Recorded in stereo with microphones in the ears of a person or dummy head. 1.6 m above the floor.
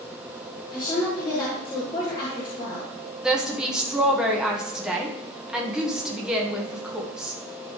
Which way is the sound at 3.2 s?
5° right (ahead or behind).